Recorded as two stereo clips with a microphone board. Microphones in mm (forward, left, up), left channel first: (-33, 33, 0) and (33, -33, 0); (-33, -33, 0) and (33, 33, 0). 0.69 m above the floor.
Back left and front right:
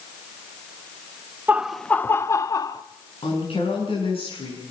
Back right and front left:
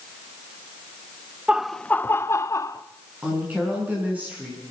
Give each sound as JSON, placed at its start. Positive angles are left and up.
{"t": 1.5, "sound": "laughter", "azimuth_deg": -10, "distance_m": 0.5}
{"t": 3.2, "sound": "a woman speaking", "azimuth_deg": 120, "distance_m": 7.0}